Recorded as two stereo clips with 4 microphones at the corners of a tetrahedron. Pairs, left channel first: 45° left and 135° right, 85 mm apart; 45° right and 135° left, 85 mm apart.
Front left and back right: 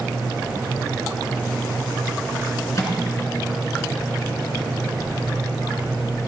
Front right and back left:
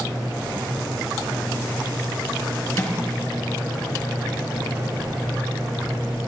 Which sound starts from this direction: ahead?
A microwave, at 2.8 s.